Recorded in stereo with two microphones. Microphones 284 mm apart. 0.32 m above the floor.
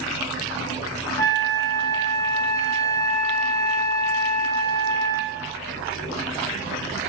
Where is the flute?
15° left (ahead or behind), 0.7 m.